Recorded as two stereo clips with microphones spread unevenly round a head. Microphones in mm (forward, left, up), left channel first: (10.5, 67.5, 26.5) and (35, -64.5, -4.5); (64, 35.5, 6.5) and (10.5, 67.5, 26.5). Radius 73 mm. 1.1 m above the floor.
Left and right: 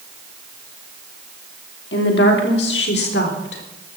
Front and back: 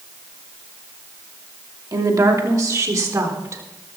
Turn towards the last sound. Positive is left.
turn(degrees=110)